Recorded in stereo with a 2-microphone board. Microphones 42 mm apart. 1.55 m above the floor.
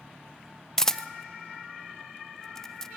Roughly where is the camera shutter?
Centre.